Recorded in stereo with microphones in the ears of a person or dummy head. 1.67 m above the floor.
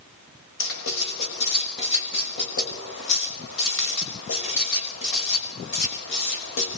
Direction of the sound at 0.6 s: 70° left (ahead or behind).